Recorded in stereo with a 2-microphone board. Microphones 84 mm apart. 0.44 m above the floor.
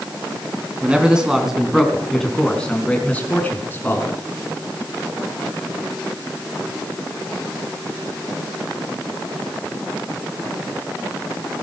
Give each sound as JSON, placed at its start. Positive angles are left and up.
{"t": 0.8, "sound": "a man speaking", "side_deg": -15, "distance_m": 3.5}